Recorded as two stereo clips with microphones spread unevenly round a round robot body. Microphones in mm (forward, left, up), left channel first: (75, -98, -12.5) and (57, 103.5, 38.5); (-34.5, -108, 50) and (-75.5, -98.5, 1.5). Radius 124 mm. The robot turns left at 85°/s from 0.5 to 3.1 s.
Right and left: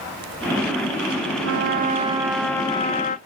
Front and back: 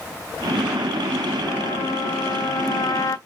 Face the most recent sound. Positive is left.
turn(degrees=-70)